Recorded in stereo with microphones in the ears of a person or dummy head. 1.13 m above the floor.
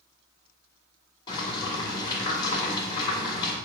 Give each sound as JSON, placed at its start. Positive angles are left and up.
{"t": 1.3, "sound": "boiling", "side_deg": 25, "distance_m": 3.0}